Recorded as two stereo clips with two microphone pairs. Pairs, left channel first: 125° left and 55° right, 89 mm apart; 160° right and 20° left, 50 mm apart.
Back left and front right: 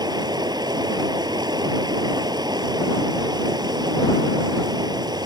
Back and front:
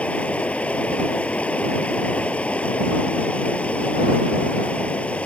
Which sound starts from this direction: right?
Running water, at 0.0 s.